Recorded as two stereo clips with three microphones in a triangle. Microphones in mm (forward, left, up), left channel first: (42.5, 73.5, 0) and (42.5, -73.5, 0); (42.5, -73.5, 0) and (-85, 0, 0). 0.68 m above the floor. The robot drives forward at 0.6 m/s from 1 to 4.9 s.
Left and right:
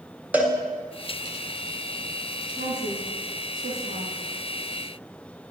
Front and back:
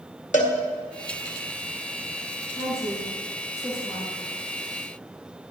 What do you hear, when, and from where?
0.3 s a cowbell: 10° right, 2.5 m
2.6 s a woman speaking: 100° right, 8 m; by 4.2 s 105° right, 8 m